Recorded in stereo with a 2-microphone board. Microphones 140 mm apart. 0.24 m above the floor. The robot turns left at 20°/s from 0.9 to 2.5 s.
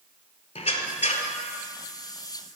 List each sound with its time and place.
0.6 s a squeak: 50° left (ahead or behind), 0.5 m; by 1.3 s 60° left (ahead or behind), 0.5 m